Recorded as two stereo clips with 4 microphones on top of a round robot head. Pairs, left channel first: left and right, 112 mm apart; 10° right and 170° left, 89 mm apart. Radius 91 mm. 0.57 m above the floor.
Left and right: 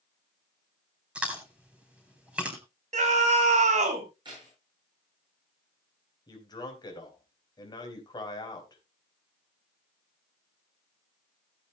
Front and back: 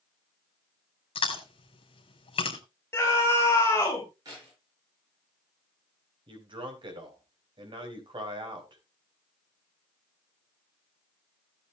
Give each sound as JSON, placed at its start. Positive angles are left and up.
{"t": 1.1, "sound": "chewing", "azimuth_deg": -10, "distance_m": 3.5}
{"t": 2.9, "sound": "a scream", "azimuth_deg": -80, "distance_m": 4.0}
{"t": 4.2, "sound": "keys jangling", "azimuth_deg": -140, "distance_m": 8.5}
{"t": 6.3, "sound": "a man speaking", "azimuth_deg": 140, "distance_m": 4.0}